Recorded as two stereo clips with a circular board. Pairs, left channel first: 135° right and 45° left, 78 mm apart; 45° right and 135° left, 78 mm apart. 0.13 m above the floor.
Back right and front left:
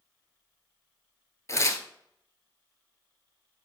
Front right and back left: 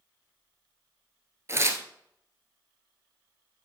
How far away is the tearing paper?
About 0.9 m.